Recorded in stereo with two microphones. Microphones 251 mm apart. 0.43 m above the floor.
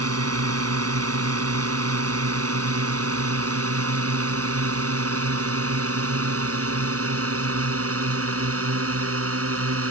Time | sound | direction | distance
0.0 | a drone | 70° right (ahead or behind) | ?